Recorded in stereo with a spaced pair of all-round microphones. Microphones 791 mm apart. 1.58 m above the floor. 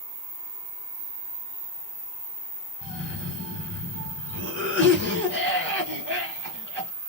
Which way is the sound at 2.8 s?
5° left (ahead or behind).